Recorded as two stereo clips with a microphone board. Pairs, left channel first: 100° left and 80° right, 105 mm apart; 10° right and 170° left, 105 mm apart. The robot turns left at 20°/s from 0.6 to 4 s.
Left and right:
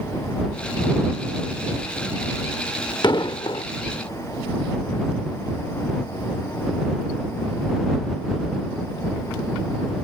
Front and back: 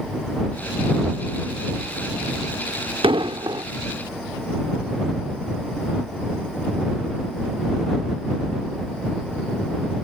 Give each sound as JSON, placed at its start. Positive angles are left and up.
{"t": 3.0, "sound": "an explosion", "azimuth_deg": 140}